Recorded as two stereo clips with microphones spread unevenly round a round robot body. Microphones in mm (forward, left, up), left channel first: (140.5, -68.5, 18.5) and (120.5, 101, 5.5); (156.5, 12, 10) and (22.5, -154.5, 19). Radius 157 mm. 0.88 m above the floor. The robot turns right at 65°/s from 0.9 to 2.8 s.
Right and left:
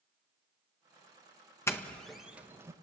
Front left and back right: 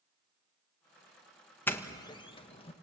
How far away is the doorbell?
About 1.4 m.